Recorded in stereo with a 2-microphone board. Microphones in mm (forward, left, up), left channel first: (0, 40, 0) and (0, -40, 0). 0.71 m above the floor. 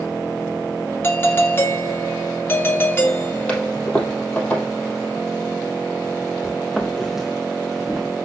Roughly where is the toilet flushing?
Centre.